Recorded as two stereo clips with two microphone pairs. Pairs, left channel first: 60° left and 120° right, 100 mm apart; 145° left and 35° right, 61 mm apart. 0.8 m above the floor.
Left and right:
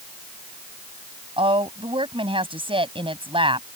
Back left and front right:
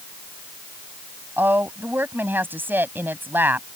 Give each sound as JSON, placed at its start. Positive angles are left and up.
{"t": 1.4, "sound": "a woman speaking", "azimuth_deg": -90}